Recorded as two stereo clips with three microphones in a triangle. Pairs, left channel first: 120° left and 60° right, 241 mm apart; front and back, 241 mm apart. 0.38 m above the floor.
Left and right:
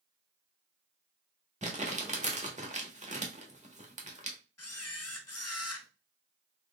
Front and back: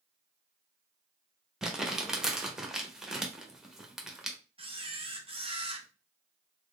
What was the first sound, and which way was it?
Crumpling, 90° right.